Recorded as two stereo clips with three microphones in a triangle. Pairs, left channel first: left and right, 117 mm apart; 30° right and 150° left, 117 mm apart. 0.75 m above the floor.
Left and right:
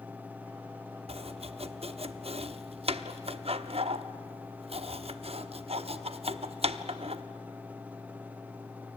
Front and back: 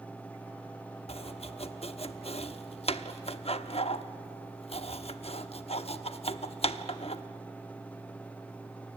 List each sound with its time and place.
1.1 s chopping: 60° right, 0.9 m